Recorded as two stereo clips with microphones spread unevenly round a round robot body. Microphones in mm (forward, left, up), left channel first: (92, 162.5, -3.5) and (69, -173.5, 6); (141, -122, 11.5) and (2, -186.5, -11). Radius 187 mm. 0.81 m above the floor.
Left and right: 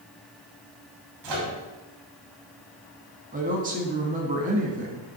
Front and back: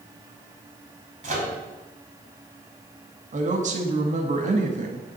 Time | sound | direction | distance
1.2 | a microwave | 120° right | 2.5 m
3.3 | a woman speaking | 160° right | 1.0 m